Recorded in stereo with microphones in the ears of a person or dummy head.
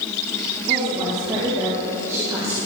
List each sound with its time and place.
0.7 s a woman speaking: 25° right (ahead or behind), 3 m; by 2.6 s 10° right (ahead or behind), 1.9 m